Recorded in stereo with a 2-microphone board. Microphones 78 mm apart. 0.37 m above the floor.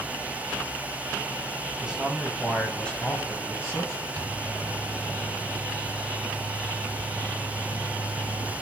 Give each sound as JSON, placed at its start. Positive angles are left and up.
{"t": 1.8, "sound": "a man speaking", "side_deg": -15, "distance_m": 2.0}
{"t": 4.2, "sound": "a microwave", "side_deg": -50, "distance_m": 1.9}